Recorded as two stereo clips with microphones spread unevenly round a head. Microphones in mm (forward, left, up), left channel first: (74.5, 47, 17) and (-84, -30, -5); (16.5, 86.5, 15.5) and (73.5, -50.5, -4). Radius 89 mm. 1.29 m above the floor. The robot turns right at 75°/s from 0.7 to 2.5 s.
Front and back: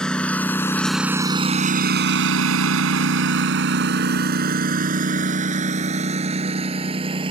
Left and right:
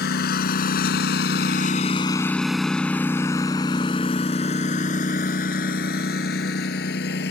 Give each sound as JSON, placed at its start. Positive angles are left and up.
{"t": 0.0, "sound": "a lawn mower", "azimuth_deg": 110}